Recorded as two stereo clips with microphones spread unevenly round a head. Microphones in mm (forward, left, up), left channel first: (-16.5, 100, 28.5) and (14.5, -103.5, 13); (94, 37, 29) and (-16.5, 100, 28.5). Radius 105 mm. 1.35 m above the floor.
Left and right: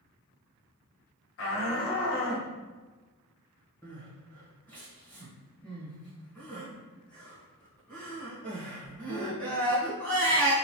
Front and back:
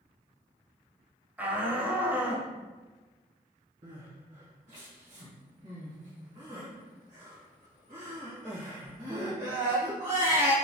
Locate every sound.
1.4 s a shout: 70° left, 1.1 m
3.8 s crying: straight behind, 1.3 m